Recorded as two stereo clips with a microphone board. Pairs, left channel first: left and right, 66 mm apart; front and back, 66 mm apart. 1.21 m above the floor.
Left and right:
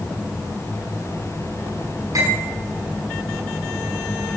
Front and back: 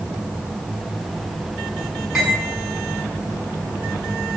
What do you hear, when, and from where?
2.1 s cutlery clinking: 95° right, 7 m